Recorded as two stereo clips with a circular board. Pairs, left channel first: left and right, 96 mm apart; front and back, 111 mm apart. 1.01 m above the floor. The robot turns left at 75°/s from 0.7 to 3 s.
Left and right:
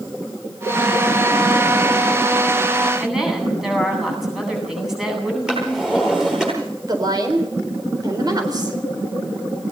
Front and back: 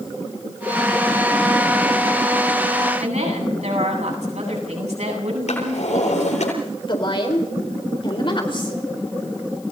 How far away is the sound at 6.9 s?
About 4 m.